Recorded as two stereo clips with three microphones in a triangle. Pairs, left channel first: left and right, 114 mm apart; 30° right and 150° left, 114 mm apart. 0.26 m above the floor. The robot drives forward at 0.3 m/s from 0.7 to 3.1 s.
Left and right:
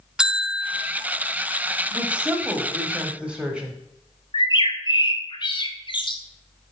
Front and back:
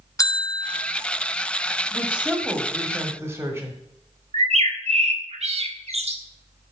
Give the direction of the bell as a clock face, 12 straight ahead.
12 o'clock.